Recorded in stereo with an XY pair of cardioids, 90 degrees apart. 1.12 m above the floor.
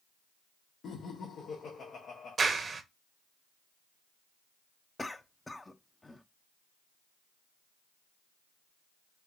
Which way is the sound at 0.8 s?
65° left.